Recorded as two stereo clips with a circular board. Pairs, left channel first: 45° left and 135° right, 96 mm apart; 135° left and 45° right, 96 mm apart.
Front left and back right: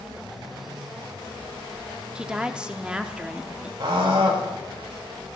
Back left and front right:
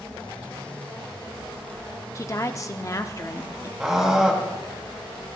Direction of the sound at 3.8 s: 130° right.